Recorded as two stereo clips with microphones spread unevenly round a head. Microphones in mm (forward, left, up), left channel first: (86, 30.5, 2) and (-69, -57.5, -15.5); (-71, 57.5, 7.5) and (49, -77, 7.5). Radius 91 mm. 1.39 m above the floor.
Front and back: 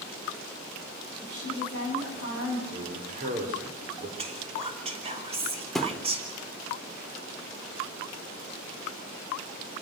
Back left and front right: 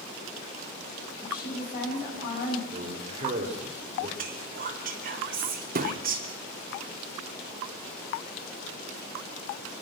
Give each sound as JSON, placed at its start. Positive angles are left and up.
{"t": 1.2, "sound": "a woman speaking", "azimuth_deg": 175, "distance_m": 8.0}
{"t": 2.7, "sound": "a man speaking", "azimuth_deg": -105, "distance_m": 4.0}
{"t": 4.2, "sound": "whispering", "azimuth_deg": -90, "distance_m": 3.5}
{"t": 5.8, "sound": "a thud", "azimuth_deg": -50, "distance_m": 1.3}